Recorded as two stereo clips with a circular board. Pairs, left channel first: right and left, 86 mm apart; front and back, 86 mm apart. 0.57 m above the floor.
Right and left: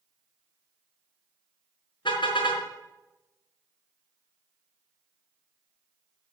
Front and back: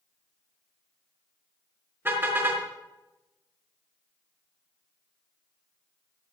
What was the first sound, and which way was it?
A car horn, 115° right.